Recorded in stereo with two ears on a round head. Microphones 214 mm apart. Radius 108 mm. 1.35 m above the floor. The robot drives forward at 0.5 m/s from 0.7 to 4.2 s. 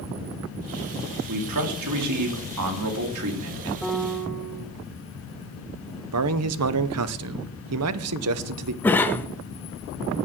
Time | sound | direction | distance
1.3 | a man speaking | 80° right | 2.5 m
3.8 | a piano | centre (ahead or behind) | 1.3 m
6.1 | a man speaking | 70° right (ahead or behind) | 0.8 m
8.8 | a cough | 10° left (ahead or behind) | 0.8 m